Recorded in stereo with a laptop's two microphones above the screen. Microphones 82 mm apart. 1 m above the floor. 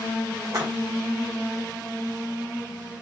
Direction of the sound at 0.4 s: 45° right (ahead or behind).